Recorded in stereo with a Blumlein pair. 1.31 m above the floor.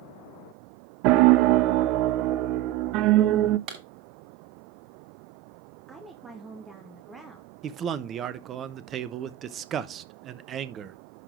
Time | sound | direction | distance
1.0 | a piano | 40° right | 0.5 m
3.7 | a clap | 35° right | 6.5 m
5.9 | a woman speaking | 15° right | 1.5 m
7.6 | a man speaking | 25° right | 1.0 m